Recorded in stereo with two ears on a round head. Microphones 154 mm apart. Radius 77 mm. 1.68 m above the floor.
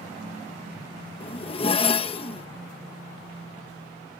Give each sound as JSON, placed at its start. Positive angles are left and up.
{"t": 1.2, "sound": "a zipper", "side_deg": 35}